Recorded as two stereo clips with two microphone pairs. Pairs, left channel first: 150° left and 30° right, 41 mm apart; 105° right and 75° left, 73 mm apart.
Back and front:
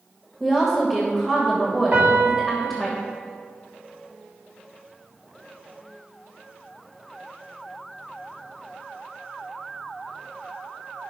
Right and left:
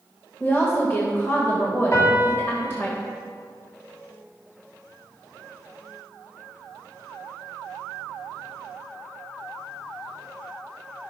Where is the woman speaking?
120° right, 1.4 m.